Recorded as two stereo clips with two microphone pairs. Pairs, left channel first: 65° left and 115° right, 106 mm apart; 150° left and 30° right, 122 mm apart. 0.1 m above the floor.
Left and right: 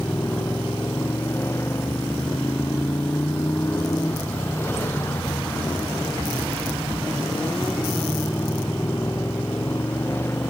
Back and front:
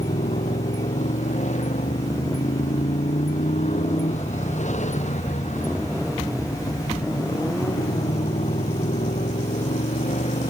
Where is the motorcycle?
135° left.